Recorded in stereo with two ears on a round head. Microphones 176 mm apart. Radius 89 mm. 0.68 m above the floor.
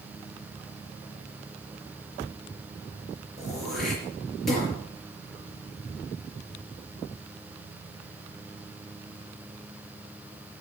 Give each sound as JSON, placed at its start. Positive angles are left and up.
{"t": 3.4, "sound": "throat clearing", "side_deg": 0, "distance_m": 5.0}